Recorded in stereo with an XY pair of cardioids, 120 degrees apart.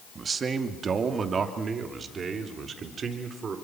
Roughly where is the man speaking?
Ahead right.